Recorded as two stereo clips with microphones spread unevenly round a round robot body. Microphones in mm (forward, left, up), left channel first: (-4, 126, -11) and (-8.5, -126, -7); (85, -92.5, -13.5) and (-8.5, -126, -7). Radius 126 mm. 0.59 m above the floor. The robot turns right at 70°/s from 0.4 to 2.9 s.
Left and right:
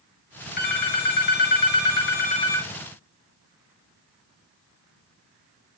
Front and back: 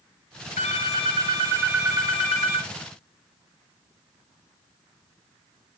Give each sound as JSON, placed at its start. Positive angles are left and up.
{"t": 0.6, "sound": "a phone ringing", "azimuth_deg": 30, "distance_m": 1.2}